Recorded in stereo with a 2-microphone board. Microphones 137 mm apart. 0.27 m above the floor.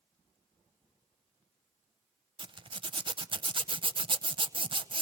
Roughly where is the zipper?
Right.